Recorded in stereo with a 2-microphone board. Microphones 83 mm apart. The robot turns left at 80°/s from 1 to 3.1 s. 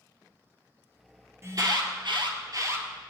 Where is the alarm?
35° right, 2.5 m; by 2.9 s 150° right, 2.5 m.